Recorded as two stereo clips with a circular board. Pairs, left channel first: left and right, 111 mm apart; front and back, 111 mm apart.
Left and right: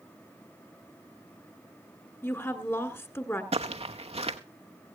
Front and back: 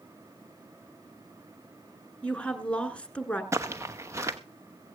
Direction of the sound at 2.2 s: 65° left.